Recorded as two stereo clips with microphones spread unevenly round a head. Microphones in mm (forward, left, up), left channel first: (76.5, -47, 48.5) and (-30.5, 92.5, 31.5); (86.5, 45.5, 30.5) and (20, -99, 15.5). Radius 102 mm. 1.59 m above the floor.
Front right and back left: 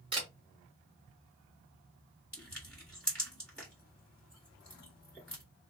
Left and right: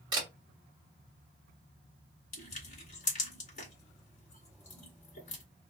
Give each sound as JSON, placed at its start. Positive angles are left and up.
{"t": 0.1, "sound": "a camera shutter", "azimuth_deg": -175, "distance_m": 1.3}
{"t": 2.3, "sound": "crushing", "azimuth_deg": 30, "distance_m": 2.0}